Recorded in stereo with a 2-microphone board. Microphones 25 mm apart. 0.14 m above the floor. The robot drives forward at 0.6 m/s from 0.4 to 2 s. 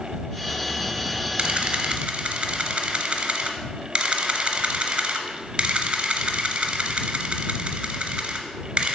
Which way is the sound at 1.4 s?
40° right (ahead or behind).